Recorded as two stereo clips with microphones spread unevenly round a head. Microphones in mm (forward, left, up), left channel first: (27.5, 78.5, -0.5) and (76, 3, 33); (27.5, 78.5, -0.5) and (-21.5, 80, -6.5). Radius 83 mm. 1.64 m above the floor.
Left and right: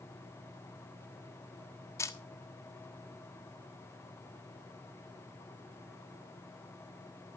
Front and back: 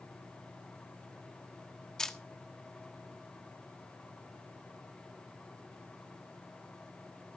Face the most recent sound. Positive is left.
turn(degrees=55)